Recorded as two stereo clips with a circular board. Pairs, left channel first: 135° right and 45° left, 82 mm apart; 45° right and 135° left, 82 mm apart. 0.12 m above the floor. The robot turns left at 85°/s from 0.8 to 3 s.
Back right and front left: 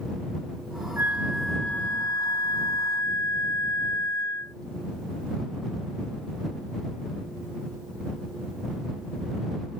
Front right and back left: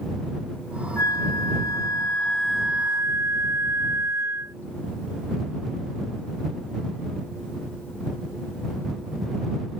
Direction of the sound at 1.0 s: 5° right.